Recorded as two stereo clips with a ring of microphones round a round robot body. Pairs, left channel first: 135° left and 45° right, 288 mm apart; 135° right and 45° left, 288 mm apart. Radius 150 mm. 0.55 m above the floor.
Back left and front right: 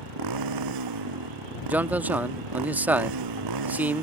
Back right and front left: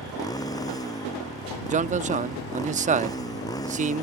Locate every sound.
0.0 s a motorcycle: 55° right
1.7 s a man speaking: 30° left